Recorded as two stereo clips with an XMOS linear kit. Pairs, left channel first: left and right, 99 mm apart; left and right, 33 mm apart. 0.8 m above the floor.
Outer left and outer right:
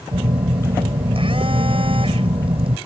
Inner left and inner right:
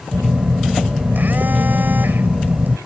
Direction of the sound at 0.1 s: 65° right (ahead or behind).